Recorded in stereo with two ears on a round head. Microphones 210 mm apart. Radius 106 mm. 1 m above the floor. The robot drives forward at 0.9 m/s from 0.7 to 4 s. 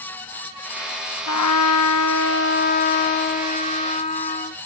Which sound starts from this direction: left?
A trumpet, at 1.3 s.